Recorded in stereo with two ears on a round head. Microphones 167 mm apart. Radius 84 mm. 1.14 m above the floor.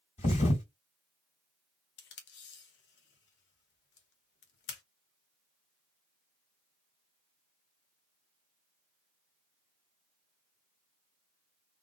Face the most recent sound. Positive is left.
turn(degrees=65)  # may be behind; listen again after turning